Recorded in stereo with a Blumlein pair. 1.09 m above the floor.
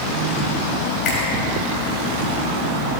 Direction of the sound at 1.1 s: 35° left.